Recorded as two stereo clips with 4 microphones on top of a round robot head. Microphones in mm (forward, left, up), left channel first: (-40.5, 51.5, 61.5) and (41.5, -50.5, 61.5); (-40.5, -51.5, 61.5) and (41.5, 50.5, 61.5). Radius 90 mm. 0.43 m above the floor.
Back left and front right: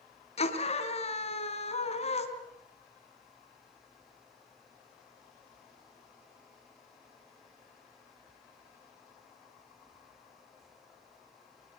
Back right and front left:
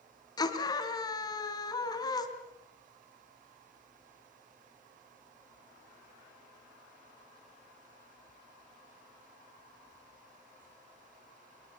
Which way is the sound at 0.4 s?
170° left.